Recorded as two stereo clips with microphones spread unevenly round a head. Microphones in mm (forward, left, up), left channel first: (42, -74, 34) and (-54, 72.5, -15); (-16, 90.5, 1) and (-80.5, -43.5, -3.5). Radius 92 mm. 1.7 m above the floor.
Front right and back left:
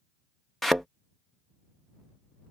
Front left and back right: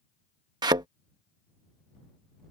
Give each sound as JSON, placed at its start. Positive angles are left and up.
{"t": 0.6, "sound": "a thud", "azimuth_deg": -105}